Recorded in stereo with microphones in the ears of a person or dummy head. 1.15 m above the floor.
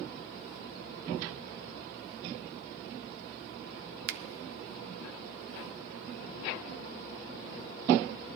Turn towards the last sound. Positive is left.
turn(degrees=-60)  # may be behind; listen again after turning